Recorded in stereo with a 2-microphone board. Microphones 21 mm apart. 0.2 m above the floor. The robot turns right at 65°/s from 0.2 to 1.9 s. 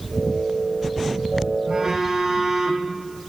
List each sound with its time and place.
1.7 s a phone buzzing: 35° right (ahead or behind), 5.5 m; by 2.9 s 20° right (ahead or behind), 5.5 m